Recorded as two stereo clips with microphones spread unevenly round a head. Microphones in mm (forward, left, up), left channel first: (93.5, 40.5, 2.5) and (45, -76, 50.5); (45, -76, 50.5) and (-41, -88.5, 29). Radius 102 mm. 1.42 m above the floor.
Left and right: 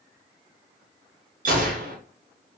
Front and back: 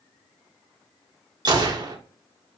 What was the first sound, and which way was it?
A gunshot, 130° right.